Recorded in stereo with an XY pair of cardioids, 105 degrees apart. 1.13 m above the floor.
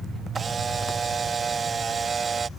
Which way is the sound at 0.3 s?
35° right.